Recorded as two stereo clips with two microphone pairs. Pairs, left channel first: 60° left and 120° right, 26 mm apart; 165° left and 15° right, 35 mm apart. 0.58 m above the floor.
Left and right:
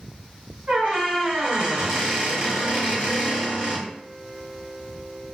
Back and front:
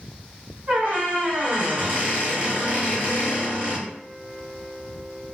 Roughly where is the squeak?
Right.